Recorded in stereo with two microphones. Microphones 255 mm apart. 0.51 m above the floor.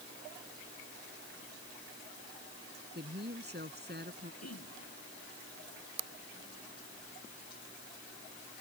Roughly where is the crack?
I don't hear a crack.